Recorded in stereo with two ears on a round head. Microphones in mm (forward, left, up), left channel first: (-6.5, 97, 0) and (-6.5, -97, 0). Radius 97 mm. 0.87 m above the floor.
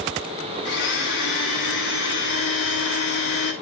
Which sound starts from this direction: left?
A blender, at 0.7 s.